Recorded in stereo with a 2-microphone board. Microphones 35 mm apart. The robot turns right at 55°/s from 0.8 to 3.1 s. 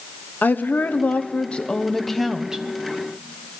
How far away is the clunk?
No clunk in this recording.